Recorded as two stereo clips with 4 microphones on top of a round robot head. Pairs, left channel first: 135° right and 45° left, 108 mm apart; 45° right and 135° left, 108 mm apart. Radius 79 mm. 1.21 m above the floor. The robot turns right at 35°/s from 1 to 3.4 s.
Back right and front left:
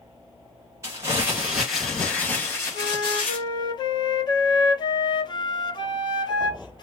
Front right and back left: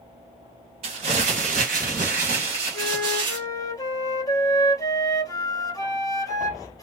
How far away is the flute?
About 1.0 m.